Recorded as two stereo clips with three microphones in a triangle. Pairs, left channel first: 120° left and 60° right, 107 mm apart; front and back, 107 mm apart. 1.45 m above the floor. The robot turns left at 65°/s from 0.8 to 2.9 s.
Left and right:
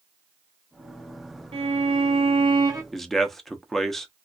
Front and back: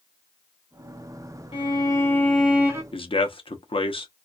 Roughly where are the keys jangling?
No keys jangling in this recording.